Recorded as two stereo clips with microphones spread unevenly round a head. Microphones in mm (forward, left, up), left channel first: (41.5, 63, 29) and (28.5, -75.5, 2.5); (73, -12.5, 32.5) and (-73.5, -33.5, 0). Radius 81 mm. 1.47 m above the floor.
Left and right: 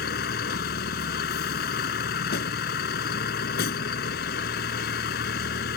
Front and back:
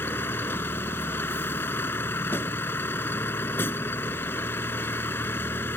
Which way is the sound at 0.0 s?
85° left.